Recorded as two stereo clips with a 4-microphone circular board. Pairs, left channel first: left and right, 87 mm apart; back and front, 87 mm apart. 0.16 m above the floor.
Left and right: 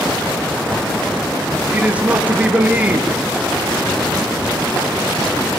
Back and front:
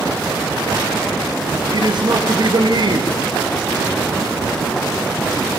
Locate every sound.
1.7 s a man speaking: 20° right, 3.5 m